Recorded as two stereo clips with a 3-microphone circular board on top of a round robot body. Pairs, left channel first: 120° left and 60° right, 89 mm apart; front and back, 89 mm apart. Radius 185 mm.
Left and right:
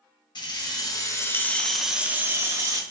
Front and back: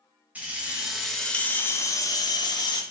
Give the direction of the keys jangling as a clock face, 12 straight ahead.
8 o'clock.